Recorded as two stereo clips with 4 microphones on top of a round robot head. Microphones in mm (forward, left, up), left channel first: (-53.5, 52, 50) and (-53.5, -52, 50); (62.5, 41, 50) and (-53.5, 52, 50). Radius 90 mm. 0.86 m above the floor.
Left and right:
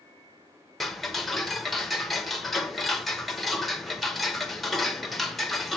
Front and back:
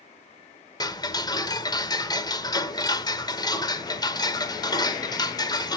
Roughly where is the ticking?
Ahead.